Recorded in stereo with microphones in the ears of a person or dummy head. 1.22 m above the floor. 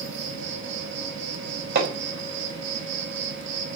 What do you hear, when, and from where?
0.0 s an insect: 65° right (ahead or behind), 4 m
1.8 s hammering: 50° right (ahead or behind), 5 m